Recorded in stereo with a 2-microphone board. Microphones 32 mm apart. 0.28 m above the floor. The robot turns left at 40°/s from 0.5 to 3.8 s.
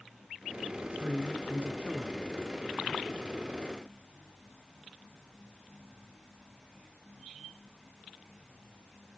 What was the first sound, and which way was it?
A man speaking, 105° right.